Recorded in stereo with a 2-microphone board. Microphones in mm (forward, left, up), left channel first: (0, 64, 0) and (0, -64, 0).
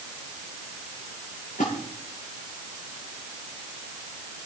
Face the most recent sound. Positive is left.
turn(degrees=85)